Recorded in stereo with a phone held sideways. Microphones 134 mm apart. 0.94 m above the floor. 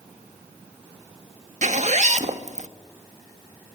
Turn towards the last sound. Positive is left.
turn(degrees=-60)  # may be behind; listen again after turning